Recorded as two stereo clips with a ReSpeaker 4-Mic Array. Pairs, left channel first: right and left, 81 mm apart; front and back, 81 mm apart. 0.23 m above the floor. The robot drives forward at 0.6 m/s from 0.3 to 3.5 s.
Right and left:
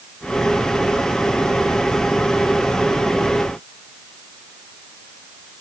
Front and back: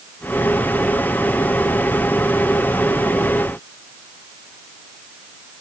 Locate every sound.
Only background noise.